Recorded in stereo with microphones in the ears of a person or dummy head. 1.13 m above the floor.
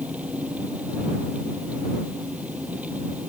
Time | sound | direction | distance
0.0 | an engine running | 10° right (ahead or behind) | ?